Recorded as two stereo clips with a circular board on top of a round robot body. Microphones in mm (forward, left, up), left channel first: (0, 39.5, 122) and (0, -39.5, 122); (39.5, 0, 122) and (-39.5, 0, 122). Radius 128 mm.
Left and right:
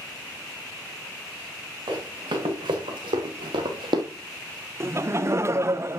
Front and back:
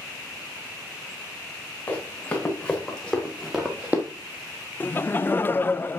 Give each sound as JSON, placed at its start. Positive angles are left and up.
{"t": 1.9, "sound": "running footsteps", "azimuth_deg": -70, "distance_m": 3.5}
{"t": 4.8, "sound": "laughter", "azimuth_deg": -55, "distance_m": 0.7}